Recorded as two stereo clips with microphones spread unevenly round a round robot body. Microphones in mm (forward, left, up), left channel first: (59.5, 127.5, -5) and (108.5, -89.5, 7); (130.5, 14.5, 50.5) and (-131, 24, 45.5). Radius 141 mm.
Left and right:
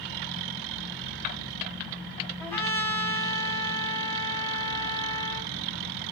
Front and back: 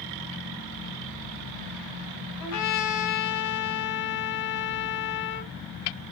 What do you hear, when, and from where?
2.4 s a trumpet: 20° left, 1.3 m